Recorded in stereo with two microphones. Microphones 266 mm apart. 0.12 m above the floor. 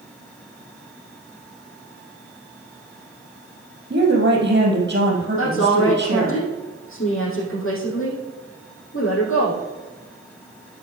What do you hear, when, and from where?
3.9 s a woman speaking: 45° right (ahead or behind), 3 m
5.4 s a woman speaking: 50° left (ahead or behind), 4.5 m